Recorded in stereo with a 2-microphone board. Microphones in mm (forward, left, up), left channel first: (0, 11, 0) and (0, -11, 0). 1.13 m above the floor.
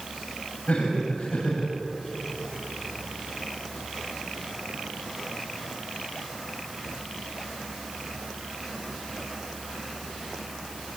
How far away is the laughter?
About 7.5 m.